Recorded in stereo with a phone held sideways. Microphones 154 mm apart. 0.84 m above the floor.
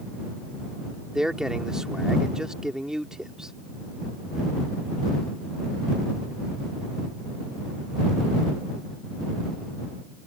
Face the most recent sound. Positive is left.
turn(degrees=-5)  # may be behind; listen again after turning